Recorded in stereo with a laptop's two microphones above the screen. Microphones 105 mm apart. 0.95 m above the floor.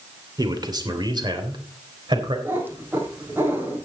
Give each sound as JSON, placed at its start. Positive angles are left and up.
{"t": 0.4, "sound": "a man speaking", "side_deg": -40, "distance_m": 2.5}
{"t": 2.5, "sound": "a cat meowing", "side_deg": -20, "distance_m": 3.5}